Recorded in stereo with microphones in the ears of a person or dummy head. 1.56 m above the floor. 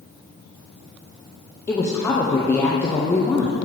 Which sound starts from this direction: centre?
A woman speaking, at 1.7 s.